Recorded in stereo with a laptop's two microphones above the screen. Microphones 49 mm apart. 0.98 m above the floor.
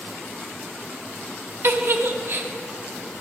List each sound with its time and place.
1.6 s a giggle: 55° right (ahead or behind), 0.5 m